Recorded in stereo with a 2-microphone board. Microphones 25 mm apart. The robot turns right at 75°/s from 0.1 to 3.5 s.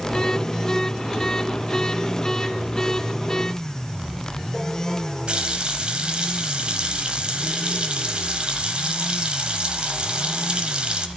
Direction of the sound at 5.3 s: 40° right (ahead or behind).